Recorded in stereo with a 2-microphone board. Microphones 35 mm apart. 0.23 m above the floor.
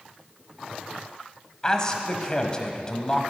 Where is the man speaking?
25° left (ahead or behind), 1.1 m.